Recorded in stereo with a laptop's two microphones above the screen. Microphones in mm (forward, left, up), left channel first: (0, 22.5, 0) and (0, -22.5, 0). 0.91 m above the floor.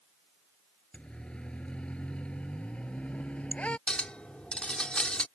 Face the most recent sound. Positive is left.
turn(degrees=25)  # may be behind; listen again after turning